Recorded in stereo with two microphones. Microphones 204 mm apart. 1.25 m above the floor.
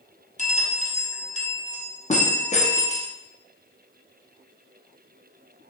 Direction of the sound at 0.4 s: 35° left (ahead or behind).